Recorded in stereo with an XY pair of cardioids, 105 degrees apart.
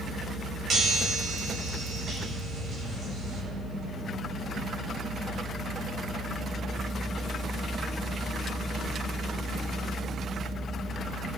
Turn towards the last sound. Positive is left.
turn(degrees=-45)